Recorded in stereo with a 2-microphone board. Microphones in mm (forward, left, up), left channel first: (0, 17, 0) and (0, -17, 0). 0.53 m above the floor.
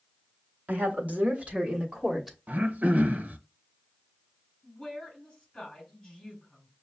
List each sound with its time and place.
0.7 s a woman speaking: 60° right (ahead or behind), 1.5 m; by 2.4 s 10° right (ahead or behind), 1.1 m
2.5 s throat clearing: 60° right (ahead or behind), 0.6 m
4.6 s a woman speaking: 30° left (ahead or behind), 3.5 m